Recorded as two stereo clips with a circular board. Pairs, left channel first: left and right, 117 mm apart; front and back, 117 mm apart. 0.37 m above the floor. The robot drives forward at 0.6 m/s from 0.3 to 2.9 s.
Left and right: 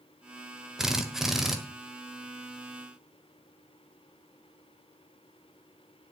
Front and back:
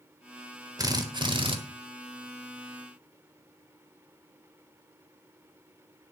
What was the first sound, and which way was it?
A drill, 170° right.